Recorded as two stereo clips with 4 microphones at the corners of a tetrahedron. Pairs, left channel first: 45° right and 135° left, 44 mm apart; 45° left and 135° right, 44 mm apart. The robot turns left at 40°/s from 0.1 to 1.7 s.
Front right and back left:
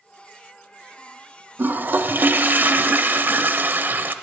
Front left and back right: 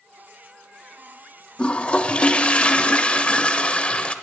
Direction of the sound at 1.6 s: 110° left.